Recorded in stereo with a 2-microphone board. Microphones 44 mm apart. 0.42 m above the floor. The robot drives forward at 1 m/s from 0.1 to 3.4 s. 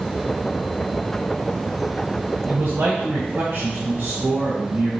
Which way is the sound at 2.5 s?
50° right (ahead or behind).